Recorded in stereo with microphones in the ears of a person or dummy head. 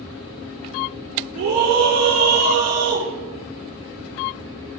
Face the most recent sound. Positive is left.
turn(degrees=-70)  # may be behind; listen again after turning